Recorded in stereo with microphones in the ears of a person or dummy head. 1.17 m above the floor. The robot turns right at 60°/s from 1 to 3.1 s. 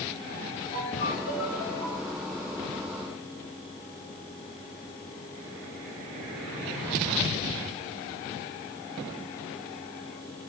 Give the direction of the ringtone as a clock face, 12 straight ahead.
10 o'clock.